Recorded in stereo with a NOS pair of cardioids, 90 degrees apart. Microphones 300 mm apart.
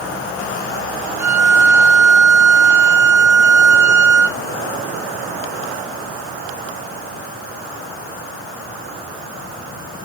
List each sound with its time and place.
1.2 s a violin: 10° right, 0.7 m